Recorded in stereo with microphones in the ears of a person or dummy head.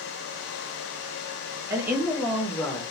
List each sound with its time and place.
1.7 s a woman speaking: 15° right (ahead or behind), 1.2 m; by 2.8 s 20° left (ahead or behind), 0.9 m